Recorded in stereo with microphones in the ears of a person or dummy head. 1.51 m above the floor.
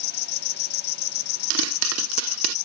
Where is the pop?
80° right.